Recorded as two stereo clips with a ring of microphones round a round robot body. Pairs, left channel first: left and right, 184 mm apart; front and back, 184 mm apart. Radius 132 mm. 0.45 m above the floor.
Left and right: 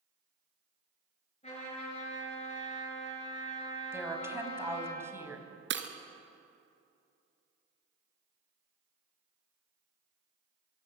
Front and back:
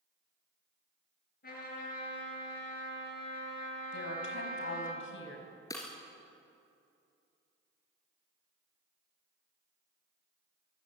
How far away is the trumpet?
About 8.5 m.